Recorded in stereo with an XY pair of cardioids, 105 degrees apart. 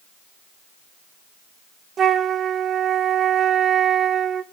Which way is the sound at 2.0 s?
50° right.